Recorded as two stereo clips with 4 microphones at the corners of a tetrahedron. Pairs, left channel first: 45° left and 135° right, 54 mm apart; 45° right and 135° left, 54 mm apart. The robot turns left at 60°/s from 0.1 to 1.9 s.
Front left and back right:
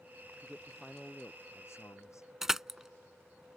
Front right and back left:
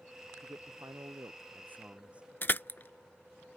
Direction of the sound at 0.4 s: 160° left.